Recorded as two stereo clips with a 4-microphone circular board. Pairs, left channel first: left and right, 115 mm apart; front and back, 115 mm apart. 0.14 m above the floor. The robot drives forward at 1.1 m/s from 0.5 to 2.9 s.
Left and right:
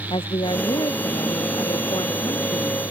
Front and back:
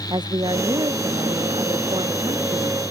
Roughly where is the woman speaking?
Behind left.